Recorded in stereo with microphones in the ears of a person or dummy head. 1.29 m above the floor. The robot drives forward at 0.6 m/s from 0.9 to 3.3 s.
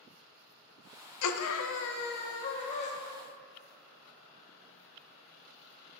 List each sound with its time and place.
1.2 s a scream: 90° left, 0.6 m; by 2.9 s 30° left (ahead or behind), 1.2 m